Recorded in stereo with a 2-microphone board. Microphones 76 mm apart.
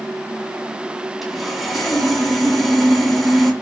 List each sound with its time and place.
1.2 s sawing: centre (ahead or behind), 1.2 m